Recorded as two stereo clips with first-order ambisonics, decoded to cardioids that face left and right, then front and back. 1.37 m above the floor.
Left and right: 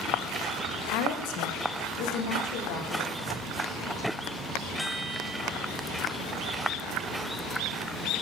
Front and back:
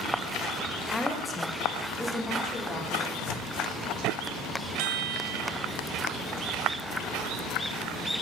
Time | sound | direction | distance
0.9 | a woman speaking | 85° left | 0.7 m
3.1 | tearing paper | 10° left | 0.7 m
4.8 | a chime | 175° left | 0.7 m